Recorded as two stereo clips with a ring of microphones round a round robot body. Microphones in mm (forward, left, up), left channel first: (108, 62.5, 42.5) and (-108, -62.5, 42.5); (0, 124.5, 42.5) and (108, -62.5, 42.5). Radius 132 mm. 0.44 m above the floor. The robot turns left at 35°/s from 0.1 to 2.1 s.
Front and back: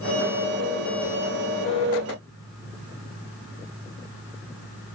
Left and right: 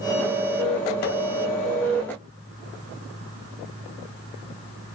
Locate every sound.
Only background noise.